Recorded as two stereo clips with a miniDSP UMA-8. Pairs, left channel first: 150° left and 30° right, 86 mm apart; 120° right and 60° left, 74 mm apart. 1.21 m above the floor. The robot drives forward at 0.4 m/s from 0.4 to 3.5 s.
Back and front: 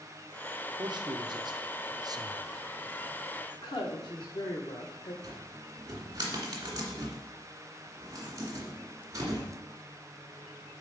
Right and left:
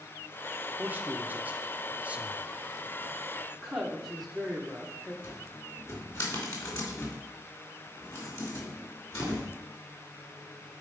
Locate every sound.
0.8 s a man speaking: 5° right, 1.2 m; by 2.5 s 10° right, 0.6 m
3.5 s a woman speaking: 150° left, 1.3 m
5.2 s a cupboard door: 80° right, 2 m